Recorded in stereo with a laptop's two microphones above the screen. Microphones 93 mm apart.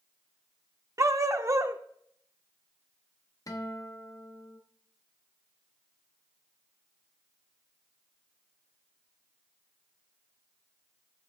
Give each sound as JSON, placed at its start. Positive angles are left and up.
{"t": 1.0, "sound": "a dog barking", "side_deg": -35, "distance_m": 0.6}
{"t": 3.5, "sound": "a guitar", "side_deg": 40, "distance_m": 0.6}